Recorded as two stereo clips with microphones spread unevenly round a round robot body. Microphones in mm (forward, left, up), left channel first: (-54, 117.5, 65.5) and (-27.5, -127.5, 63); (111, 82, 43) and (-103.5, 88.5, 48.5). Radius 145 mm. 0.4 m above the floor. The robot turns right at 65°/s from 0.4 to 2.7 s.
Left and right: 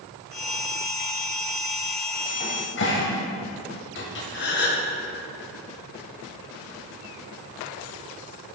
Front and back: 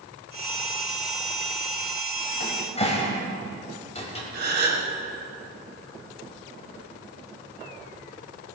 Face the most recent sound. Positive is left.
turn(degrees=140)